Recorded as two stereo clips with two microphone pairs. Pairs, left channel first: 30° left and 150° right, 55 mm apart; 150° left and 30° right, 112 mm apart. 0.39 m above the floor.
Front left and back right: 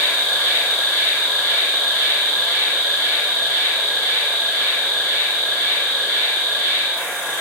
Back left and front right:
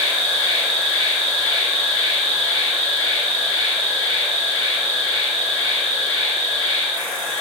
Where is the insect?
160° right, 1.1 m.